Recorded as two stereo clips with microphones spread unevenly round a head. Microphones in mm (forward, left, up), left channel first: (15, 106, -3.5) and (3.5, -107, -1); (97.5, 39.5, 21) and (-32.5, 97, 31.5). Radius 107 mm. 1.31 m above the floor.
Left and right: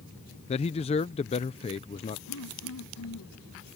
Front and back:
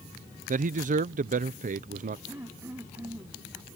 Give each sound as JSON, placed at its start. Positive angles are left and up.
{"t": 0.5, "sound": "a man speaking", "azimuth_deg": 145}
{"t": 2.3, "sound": "throat clearing", "azimuth_deg": 85}